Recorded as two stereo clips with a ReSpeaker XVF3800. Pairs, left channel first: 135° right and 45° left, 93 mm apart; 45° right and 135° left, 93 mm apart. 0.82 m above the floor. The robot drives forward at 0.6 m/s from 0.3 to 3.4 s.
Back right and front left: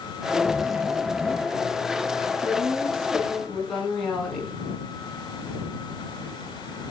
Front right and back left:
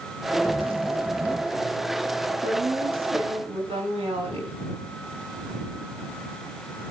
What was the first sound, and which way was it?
A zipper, 130° left.